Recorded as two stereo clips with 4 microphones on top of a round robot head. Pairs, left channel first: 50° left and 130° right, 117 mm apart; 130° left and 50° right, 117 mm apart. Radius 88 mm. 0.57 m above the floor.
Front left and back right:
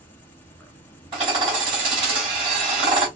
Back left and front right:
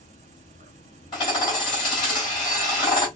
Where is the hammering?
Straight behind, 3.5 m.